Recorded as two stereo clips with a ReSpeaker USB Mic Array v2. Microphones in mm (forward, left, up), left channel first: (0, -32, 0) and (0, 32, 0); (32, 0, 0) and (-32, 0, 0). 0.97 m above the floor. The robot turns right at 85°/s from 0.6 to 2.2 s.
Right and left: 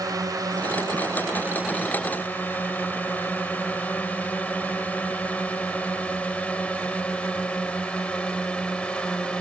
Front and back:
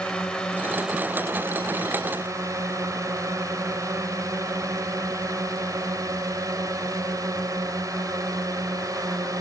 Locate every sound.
0.0 s a drone: 75° left; by 9.4 s 165° right